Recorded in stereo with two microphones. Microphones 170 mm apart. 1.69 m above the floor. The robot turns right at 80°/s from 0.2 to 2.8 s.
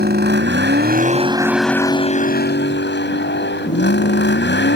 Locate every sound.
0.0 s a vehicle: 115° right; by 4.8 s 95° left